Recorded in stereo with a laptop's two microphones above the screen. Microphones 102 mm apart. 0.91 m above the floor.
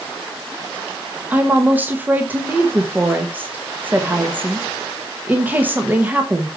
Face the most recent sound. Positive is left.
turn(degrees=-20)  # may be behind; listen again after turning